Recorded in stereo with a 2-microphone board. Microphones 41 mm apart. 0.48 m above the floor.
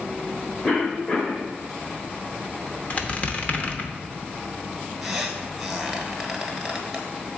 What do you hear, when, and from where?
0.6 s a cough: 30° left (ahead or behind), 1.4 m
2.9 s a squeak: 35° left (ahead or behind), 0.8 m
5.0 s a squeak: 10° left (ahead or behind), 1.3 m